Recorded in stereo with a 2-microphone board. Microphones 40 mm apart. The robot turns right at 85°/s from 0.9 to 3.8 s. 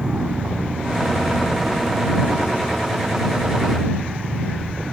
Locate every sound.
0.0 s an aircraft: 30° right; by 4.9 s 145° right